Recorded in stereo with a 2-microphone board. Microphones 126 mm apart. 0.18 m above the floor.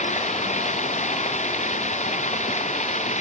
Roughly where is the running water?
Left.